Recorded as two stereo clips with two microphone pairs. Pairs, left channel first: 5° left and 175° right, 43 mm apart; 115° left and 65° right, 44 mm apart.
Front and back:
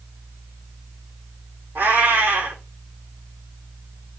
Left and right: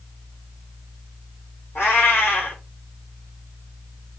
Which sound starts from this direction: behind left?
A cat meowing, at 1.8 s.